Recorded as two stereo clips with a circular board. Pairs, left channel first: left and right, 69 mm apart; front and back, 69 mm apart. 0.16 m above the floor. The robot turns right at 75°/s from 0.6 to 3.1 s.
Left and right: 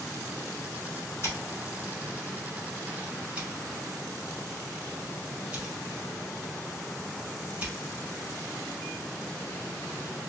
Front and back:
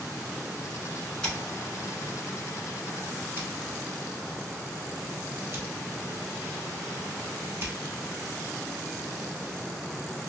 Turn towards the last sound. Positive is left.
turn(degrees=-150)